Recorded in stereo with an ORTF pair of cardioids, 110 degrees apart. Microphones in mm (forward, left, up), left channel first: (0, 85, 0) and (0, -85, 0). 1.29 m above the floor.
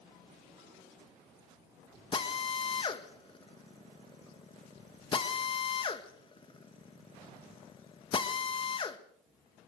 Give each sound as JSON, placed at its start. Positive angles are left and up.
{"t": 2.1, "sound": "a drill", "azimuth_deg": 30, "distance_m": 1.9}